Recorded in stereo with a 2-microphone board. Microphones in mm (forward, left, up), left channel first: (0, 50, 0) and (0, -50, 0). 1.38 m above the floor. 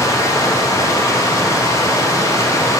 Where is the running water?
30° left (ahead or behind), 0.7 m.